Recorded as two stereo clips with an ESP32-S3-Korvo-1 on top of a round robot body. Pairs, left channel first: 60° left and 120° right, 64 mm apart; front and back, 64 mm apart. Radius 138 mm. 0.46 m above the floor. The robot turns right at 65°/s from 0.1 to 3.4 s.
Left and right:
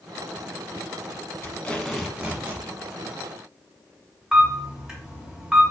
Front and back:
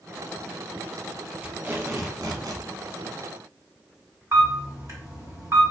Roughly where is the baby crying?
I don't hear a baby crying.